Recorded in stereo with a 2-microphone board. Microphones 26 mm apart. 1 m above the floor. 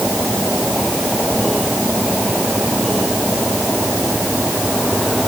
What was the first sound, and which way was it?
Only background noise.